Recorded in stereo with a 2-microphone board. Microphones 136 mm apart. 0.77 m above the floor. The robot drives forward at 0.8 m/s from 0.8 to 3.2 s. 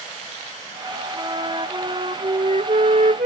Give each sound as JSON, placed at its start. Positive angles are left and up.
{"t": 1.1, "sound": "a flute", "side_deg": -35}